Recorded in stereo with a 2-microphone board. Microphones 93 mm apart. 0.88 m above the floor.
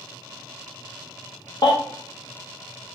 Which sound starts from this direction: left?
A baby crying, at 1.6 s.